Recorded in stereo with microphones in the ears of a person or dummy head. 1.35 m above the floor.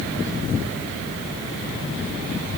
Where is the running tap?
I don't hear a running tap.